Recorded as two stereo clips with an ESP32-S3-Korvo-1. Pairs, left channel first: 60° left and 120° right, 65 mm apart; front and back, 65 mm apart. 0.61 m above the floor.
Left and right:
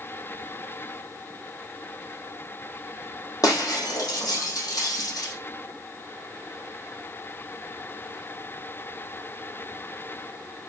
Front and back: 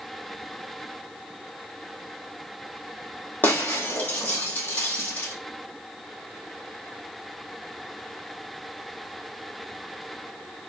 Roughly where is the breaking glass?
Ahead left.